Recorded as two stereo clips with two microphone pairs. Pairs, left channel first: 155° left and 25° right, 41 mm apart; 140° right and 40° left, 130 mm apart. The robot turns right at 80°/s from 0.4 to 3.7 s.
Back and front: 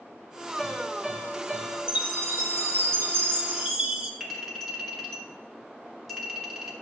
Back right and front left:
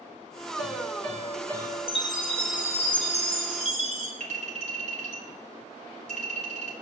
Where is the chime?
95° right, 1.5 m; by 4.1 s 50° left, 1.5 m.